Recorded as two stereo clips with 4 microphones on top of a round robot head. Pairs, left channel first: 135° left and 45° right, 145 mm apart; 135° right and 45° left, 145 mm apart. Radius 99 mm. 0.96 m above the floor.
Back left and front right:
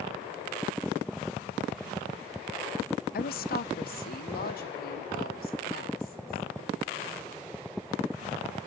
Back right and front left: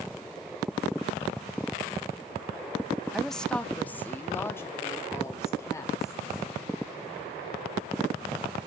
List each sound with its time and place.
3.1 s a woman speaking: 135° left, 0.8 m; by 6.5 s 155° left, 3.5 m